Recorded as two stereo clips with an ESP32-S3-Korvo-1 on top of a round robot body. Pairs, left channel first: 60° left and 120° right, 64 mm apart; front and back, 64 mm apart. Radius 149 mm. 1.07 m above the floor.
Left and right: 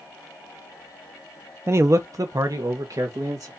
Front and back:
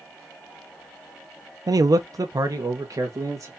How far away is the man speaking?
About 0.6 m.